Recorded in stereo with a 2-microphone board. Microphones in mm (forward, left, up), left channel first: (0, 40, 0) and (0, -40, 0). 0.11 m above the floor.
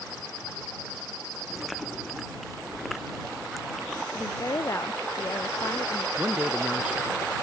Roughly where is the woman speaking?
Left.